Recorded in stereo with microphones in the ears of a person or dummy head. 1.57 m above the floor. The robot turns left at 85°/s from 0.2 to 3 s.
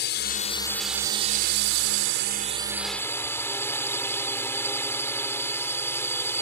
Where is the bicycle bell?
No bicycle bell in this recording.